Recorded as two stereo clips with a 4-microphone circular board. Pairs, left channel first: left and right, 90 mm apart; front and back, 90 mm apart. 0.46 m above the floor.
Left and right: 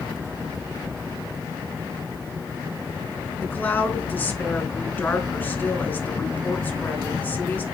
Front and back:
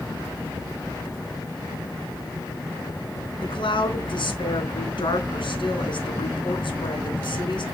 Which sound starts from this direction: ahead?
A woman speaking, at 3.4 s.